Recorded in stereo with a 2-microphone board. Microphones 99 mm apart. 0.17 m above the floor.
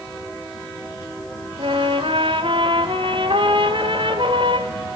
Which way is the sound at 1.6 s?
60° right (ahead or behind).